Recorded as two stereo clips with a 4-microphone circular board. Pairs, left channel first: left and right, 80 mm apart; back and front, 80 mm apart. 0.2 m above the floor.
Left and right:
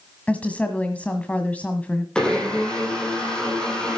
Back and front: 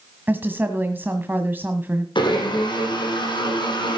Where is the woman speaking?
35° left, 1.5 m.